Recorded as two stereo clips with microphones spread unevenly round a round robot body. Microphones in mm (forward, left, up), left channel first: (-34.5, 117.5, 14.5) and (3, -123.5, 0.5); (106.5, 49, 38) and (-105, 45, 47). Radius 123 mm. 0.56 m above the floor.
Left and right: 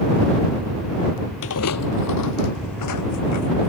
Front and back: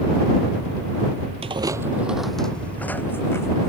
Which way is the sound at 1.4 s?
125° left.